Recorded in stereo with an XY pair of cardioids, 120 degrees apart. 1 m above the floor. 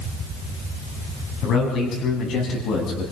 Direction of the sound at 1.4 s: 65° left.